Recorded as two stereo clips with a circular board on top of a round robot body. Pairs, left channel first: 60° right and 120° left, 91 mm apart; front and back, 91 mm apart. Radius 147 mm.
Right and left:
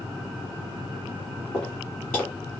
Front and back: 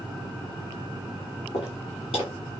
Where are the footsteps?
20° left, 0.9 m.